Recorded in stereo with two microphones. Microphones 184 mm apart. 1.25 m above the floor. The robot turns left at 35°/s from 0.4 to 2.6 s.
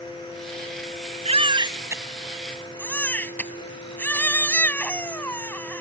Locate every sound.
1.2 s a baby crying: 145° right; by 5.8 s 170° left